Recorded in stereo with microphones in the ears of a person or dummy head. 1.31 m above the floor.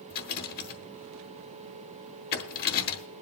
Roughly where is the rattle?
Left.